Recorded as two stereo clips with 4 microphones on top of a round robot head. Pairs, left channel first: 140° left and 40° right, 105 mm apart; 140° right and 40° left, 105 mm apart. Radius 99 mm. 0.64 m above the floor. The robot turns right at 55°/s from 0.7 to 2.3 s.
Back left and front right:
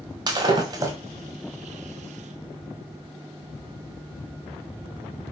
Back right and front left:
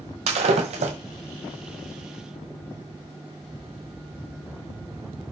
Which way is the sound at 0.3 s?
15° left.